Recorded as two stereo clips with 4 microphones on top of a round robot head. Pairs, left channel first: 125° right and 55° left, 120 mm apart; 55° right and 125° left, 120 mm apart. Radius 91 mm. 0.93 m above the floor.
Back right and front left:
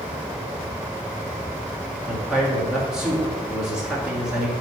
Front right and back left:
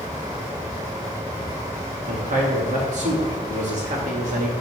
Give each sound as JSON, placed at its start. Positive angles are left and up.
{"t": 2.1, "sound": "a man speaking", "azimuth_deg": 140, "distance_m": 1.7}